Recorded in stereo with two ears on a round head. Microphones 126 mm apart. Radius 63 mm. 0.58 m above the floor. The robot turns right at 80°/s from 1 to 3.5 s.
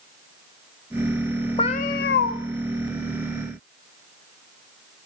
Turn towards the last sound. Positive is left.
turn(degrees=-170)